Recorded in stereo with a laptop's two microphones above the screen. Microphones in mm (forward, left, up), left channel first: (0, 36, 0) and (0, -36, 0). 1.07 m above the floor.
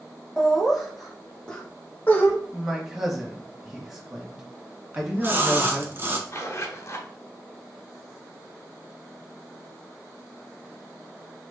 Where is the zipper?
40° left (ahead or behind), 0.9 m.